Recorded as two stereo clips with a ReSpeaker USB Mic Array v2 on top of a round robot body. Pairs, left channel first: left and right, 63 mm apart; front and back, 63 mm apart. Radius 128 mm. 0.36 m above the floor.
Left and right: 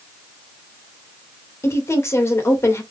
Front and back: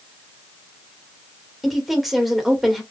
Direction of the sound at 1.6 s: 95° left.